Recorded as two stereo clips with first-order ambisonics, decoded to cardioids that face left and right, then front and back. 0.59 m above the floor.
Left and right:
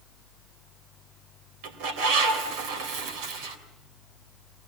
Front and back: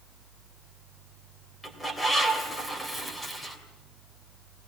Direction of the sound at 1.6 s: 80° right.